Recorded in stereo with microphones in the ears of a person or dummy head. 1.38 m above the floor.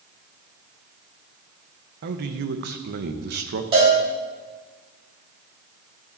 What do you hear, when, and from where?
2.0 s a man speaking: 55° right (ahead or behind), 0.9 m
3.7 s a cowbell: 35° right (ahead or behind), 3 m